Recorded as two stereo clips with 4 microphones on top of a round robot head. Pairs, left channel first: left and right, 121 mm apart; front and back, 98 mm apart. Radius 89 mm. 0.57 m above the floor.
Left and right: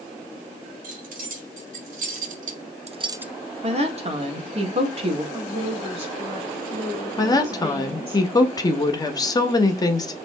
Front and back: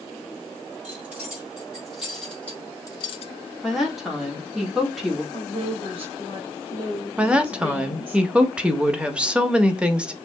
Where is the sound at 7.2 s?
110° left, 1.1 m.